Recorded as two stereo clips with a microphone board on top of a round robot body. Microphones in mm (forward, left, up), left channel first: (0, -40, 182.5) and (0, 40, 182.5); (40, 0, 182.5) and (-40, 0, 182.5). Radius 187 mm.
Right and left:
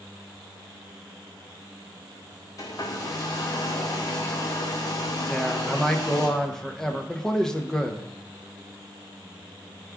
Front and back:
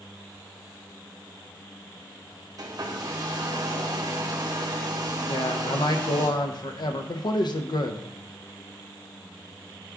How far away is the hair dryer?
About 0.8 m.